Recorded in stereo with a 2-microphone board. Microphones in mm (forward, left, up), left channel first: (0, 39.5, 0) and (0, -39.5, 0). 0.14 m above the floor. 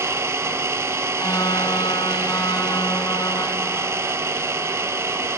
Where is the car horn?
50° left (ahead or behind), 2 m.